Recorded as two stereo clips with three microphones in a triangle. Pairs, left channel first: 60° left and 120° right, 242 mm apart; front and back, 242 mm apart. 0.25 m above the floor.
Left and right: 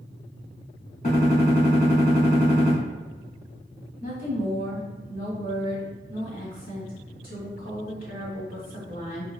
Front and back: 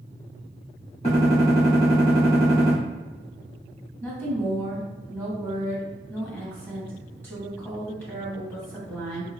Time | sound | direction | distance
1.0 | a gunshot | 40° left | 1.7 m
4.0 | a woman speaking | 75° left | 1.8 m